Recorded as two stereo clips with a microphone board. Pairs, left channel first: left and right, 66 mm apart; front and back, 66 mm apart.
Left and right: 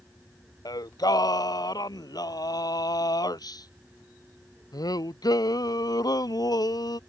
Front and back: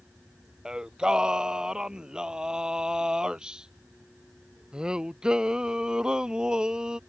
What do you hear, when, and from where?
0.7 s singing: 105° left